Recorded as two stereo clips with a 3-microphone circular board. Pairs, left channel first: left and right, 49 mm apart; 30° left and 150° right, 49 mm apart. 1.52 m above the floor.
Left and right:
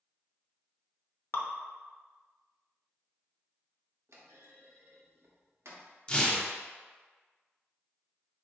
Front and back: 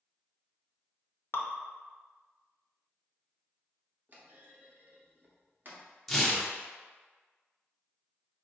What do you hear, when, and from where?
1.3 s dripping: 60° left, 0.5 m
4.1 s a clunk: 105° right, 0.8 m
6.1 s tearing paper: 100° left, 0.7 m